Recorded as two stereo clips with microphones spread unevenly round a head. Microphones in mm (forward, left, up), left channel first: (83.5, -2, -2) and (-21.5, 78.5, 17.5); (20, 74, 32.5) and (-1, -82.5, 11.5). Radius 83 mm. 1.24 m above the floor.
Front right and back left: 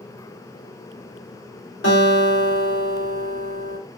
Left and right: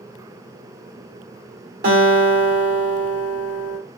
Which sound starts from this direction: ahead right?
A guitar, at 1.8 s.